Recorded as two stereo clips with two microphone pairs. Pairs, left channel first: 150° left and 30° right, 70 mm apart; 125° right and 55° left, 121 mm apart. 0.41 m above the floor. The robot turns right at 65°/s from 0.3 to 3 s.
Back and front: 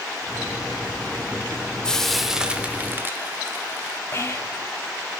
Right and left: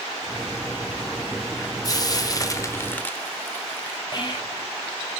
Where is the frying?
140° right, 0.9 m; by 4.0 s 65° right, 0.9 m.